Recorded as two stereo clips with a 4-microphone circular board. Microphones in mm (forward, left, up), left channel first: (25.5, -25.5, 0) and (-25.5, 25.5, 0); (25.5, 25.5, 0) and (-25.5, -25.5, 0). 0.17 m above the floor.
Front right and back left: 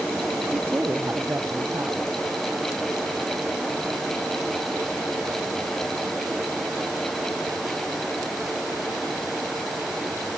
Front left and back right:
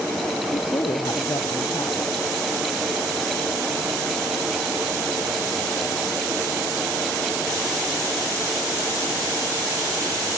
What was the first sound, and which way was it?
A woman speaking, 75° left.